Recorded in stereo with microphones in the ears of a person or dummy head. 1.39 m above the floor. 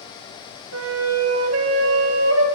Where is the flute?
80° right, 1.6 m.